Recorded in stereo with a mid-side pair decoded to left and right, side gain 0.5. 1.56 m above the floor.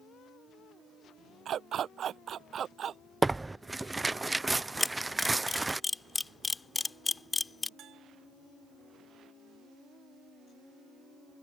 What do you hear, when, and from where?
1.4 s a dog barking: 55° right; by 3.0 s 50° right
3.2 s tearing paper: 15° right
4.8 s a camera shutter: 20° left
7.8 s a bell: 60° right